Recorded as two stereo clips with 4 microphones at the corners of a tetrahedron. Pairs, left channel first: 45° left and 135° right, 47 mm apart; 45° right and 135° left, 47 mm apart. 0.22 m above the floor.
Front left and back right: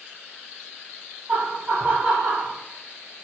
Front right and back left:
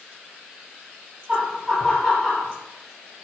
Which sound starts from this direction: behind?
Laughter, at 1.3 s.